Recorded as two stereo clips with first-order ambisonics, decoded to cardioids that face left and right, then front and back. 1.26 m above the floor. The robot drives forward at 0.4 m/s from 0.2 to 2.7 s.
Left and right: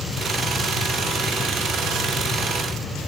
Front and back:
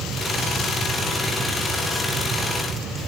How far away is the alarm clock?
I don't hear an alarm clock.